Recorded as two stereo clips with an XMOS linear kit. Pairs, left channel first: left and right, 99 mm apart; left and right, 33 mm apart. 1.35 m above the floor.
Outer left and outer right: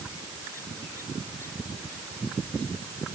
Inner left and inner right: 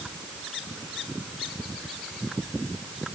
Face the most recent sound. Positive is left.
No sound to turn to.